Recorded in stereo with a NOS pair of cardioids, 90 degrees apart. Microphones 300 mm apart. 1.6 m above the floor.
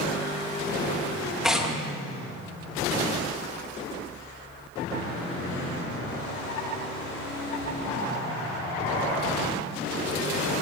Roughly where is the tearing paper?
Ahead.